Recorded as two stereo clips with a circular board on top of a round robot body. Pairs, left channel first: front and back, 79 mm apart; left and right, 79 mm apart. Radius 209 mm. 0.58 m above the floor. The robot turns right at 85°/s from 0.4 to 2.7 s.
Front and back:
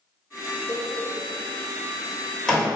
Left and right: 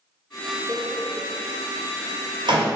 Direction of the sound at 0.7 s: 125° left.